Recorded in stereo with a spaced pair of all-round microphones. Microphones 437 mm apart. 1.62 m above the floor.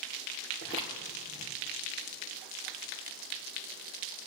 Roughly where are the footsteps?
Left.